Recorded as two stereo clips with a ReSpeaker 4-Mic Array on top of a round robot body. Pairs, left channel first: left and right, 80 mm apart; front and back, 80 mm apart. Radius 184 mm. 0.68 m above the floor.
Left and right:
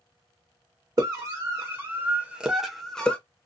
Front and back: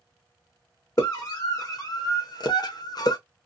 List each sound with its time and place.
1.0 s a scream: 45° right, 1.7 m; by 3.2 s 20° left, 1.1 m